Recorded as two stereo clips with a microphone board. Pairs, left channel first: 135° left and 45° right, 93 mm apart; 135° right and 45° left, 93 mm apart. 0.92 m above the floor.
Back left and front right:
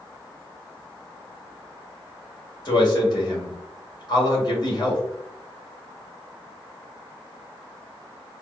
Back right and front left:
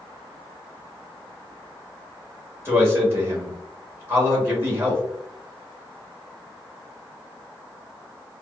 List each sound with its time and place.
2.6 s a man speaking: 105° left, 1.8 m